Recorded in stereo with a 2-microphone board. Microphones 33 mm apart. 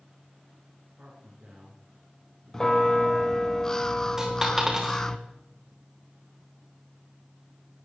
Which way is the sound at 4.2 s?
15° right (ahead or behind).